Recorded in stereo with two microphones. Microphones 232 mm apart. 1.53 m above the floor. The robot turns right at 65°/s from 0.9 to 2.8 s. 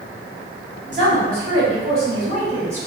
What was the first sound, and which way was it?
A woman speaking, 130° right.